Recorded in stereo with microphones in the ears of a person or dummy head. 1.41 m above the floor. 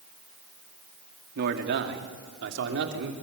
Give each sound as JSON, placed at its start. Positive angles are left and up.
{"t": 1.4, "sound": "a man speaking", "side_deg": -60, "distance_m": 2.0}